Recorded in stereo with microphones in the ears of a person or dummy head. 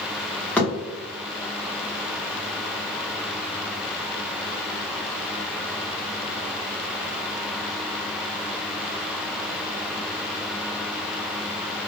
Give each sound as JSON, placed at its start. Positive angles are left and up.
{"t": 0.6, "sound": "a thud", "side_deg": 10, "distance_m": 1.2}